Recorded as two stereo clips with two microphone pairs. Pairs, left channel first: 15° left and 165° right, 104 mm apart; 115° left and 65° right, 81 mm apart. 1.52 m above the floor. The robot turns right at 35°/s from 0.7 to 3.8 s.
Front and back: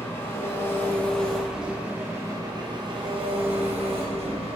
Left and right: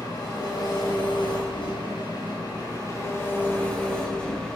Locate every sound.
0.0 s an engine running: 80° left, 4.5 m; by 4.6 s 170° right, 4.5 m